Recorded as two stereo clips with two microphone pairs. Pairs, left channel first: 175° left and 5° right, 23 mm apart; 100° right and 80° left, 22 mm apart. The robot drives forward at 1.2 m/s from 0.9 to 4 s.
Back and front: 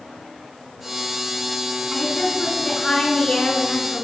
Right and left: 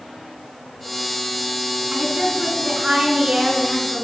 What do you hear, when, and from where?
1.9 s a woman speaking: 110° left, 4 m; by 4.0 s 135° left, 5.5 m